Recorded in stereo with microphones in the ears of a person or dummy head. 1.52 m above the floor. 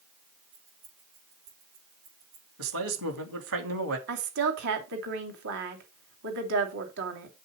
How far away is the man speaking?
About 2.5 m.